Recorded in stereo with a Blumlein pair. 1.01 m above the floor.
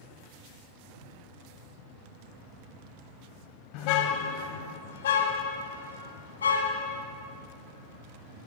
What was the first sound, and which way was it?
A car horn, 40° left.